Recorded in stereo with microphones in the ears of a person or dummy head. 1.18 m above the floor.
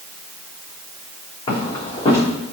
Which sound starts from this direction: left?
Footsteps, at 1.5 s.